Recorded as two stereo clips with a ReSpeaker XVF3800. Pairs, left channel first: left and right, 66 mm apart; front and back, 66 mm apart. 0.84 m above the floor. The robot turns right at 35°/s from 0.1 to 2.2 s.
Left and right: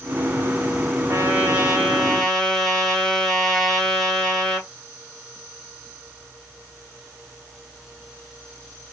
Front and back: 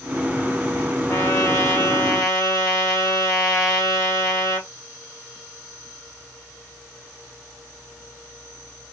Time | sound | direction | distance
1.1 | a trumpet | 40° right | 1.0 m